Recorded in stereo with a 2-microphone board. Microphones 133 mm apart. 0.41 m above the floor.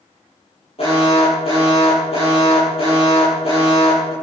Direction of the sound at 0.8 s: 45° left (ahead or behind).